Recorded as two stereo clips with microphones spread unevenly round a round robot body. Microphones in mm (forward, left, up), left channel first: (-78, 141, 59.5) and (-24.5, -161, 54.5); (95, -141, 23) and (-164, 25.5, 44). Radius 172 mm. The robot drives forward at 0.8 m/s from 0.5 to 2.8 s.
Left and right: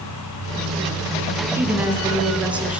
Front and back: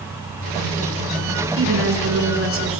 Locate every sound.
1.6 s a woman speaking: 160° right, 3.5 m; by 2.8 s 165° right, 4.5 m